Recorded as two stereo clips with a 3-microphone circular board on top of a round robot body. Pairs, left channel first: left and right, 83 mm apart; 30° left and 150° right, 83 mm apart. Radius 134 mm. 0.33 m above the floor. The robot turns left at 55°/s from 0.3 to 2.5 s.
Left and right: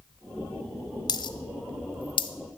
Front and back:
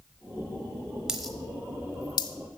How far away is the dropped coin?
About 1.1 m.